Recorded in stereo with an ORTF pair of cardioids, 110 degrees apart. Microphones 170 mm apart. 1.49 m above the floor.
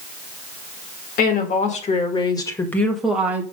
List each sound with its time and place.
1.2 s a woman speaking: 60° left, 2 m; by 3.4 s 15° right, 1.9 m